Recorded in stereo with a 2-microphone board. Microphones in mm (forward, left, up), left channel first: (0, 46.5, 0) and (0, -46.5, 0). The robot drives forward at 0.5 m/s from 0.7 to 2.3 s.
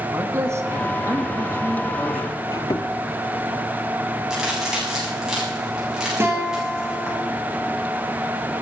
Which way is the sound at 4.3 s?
5° right (ahead or behind).